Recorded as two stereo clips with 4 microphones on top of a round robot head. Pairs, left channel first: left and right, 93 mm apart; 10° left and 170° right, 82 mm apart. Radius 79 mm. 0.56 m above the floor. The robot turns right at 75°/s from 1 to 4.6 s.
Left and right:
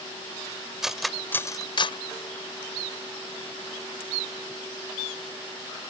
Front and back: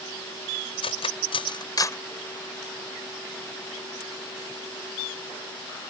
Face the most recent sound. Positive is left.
turn(degrees=-95)